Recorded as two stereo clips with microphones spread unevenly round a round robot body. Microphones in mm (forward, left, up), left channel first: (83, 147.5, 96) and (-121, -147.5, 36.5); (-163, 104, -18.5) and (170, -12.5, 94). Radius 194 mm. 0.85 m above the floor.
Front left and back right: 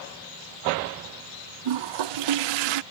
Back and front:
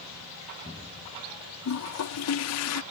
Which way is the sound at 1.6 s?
145° right.